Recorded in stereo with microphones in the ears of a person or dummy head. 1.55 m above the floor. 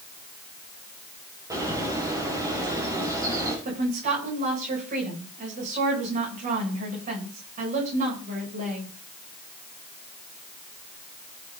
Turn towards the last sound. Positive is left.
turn(degrees=-40)  # may be behind; listen again after turning